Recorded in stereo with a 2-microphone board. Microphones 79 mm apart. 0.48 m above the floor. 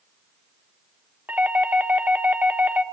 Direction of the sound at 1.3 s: 20° right (ahead or behind).